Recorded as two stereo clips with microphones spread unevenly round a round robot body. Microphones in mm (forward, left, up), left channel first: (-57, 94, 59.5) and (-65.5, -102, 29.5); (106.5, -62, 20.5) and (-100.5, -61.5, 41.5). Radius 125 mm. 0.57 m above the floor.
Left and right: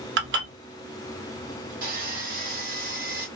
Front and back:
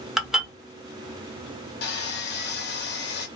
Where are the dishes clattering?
90° right, 1.1 m.